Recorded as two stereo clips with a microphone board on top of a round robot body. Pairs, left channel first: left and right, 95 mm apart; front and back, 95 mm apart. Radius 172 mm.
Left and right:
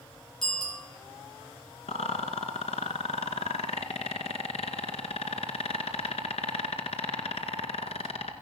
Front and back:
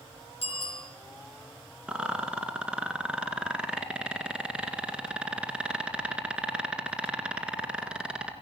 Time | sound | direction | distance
0.4 | a bicycle bell | 5° left | 8.5 m
1.9 | a rattle | 100° left | 2 m